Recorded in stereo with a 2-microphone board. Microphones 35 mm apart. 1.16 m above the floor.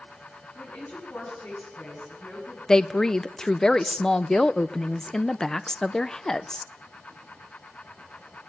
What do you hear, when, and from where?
0.6 s a woman speaking: 65° left (ahead or behind), 10 m
2.7 s a woman speaking: 20° left (ahead or behind), 0.6 m